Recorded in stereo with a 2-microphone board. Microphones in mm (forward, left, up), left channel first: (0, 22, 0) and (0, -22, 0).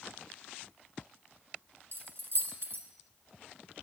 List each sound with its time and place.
1.9 s keys jangling: 60° right (ahead or behind), 1.4 m